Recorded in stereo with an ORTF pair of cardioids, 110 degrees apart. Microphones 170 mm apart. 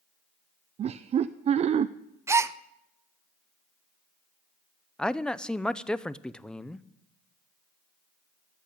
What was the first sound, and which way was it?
Laughter, 40° right.